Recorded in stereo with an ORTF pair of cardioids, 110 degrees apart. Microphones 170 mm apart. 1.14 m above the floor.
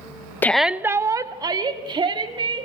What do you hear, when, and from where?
0.4 s a shout: 10° left, 0.5 m; by 2.7 s 35° right, 3 m